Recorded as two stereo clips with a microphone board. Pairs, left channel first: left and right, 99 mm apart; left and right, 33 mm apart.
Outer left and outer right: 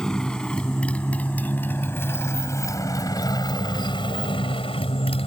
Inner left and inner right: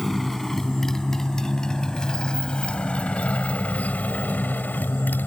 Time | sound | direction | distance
0.0 | a motorcycle | 5° left (ahead or behind) | ?